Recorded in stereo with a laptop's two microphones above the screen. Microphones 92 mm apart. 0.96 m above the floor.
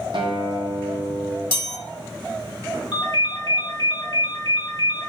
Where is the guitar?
65° right (ahead or behind), 0.7 m.